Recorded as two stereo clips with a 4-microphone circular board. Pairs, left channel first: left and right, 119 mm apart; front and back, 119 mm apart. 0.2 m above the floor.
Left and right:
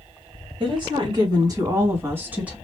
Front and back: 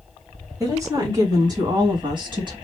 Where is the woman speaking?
125° right, 2 m; by 2.5 s 165° right, 1.7 m.